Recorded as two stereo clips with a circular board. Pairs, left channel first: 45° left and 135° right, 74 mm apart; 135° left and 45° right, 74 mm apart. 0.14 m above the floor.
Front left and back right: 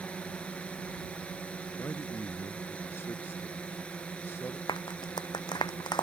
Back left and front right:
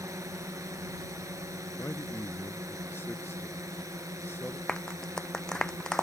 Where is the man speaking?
85° left.